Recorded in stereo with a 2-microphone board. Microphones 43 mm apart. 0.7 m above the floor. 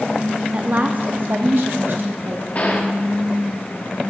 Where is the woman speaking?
30° right (ahead or behind), 0.8 m; by 2.5 s 65° right (ahead or behind), 1.7 m.